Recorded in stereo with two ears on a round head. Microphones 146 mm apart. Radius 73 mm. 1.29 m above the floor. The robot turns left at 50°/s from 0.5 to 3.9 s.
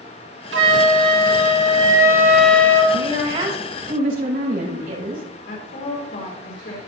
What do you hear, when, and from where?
0.5 s a flute: 85° right, 2.5 m; by 2.8 s 160° left, 2.5 m
2.9 s a woman speaking: 10° right, 7 m; by 5.2 s 60° right, 7 m
5.5 s a woman speaking: 80° left, 4.5 m